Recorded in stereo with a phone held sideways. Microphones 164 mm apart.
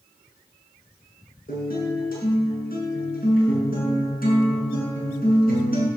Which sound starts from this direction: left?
A guitar, at 1.5 s.